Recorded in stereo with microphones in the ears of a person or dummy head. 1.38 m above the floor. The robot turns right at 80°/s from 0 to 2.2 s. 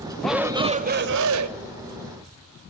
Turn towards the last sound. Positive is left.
turn(degrees=-25)